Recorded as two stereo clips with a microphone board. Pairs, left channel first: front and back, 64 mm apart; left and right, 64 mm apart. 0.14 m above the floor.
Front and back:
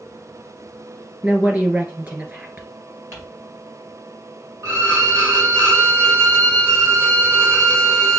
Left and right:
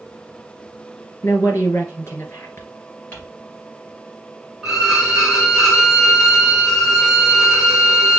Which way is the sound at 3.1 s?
145° left.